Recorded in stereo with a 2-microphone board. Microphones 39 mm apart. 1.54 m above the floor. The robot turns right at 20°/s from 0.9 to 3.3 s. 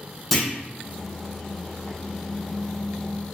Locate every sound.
0.3 s a clunk: 5° left (ahead or behind), 0.6 m